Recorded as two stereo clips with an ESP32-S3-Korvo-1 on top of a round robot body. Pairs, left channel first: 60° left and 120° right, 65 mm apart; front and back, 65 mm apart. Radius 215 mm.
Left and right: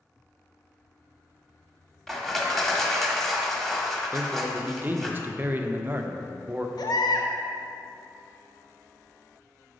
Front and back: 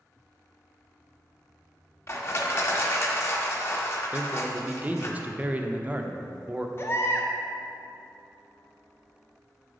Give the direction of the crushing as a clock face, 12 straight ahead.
1 o'clock.